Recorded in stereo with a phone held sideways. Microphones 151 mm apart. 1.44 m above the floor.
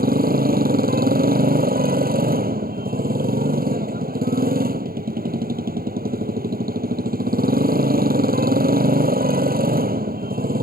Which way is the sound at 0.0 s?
85° right.